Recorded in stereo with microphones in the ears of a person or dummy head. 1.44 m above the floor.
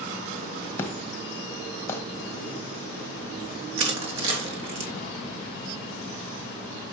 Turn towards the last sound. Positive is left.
turn(degrees=-35)  # may be behind; listen again after turning